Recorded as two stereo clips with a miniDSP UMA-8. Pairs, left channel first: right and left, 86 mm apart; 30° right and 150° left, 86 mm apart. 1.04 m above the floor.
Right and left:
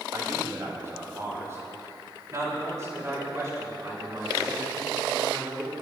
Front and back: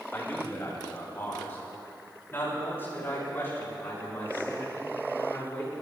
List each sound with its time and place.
0.1 s a man speaking: 35° left, 7 m